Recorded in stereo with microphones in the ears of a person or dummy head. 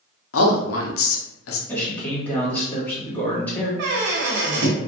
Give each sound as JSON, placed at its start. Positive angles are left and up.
{"t": 0.3, "sound": "a man speaking", "side_deg": 70, "distance_m": 0.7}
{"t": 1.7, "sound": "a man speaking", "side_deg": 20, "distance_m": 1.6}
{"t": 3.8, "sound": "a squeak", "side_deg": -60, "distance_m": 0.6}